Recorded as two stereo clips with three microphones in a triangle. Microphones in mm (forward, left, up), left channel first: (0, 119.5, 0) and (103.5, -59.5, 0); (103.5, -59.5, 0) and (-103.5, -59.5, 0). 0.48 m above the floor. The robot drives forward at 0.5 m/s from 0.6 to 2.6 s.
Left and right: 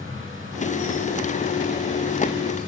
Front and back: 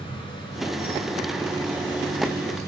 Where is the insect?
65° right, 6 m; by 2.7 s 75° right, 5.5 m.